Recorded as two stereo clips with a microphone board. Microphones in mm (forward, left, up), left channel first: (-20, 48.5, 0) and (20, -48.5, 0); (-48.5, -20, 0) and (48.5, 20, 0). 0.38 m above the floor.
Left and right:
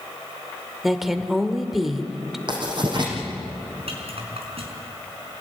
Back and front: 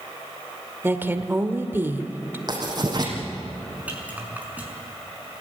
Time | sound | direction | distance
0.8 | a woman speaking | 15° left | 1.5 m
2.5 | writing | 25° right | 5.5 m
3.9 | a rattle | 50° right | 5 m